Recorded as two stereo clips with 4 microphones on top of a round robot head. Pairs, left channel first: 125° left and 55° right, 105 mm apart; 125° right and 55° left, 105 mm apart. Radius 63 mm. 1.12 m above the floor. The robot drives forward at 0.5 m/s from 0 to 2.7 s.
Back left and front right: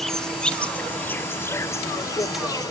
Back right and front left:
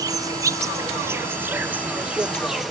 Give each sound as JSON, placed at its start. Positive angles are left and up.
{"t": 0.0, "sound": "an insect", "azimuth_deg": 40}